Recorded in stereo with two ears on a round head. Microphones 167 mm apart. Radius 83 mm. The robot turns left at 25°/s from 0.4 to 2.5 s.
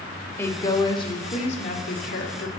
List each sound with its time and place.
0.4 s a woman speaking: 165° left, 2 m; by 2.5 s 115° left, 2 m